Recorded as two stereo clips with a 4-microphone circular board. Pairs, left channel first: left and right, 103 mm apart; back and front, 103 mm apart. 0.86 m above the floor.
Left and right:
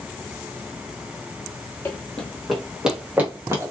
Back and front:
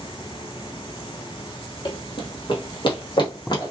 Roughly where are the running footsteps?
Behind.